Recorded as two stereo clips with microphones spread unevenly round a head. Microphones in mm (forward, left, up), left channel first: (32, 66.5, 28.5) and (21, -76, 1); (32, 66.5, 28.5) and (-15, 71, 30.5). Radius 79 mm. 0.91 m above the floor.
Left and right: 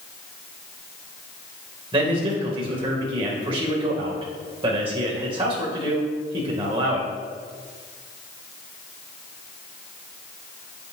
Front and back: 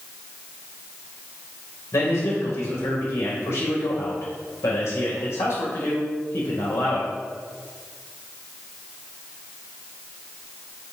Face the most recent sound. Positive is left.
turn(degrees=-40)